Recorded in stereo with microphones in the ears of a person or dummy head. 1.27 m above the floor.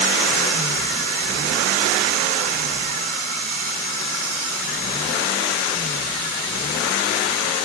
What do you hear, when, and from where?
Only background noise.